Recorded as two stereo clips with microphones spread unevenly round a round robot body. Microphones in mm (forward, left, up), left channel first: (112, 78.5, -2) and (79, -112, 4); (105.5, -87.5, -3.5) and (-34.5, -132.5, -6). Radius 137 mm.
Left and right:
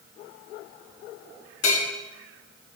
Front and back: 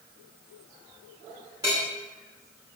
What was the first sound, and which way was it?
A bell, 120° left.